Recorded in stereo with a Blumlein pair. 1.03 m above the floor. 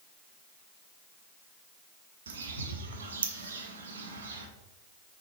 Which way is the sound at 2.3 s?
65° right.